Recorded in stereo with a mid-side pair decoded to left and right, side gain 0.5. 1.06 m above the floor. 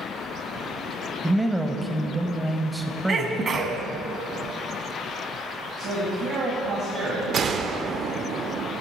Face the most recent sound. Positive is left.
turn(degrees=-50)